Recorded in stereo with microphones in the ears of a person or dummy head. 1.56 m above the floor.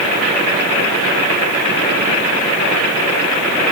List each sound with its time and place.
Only background noise.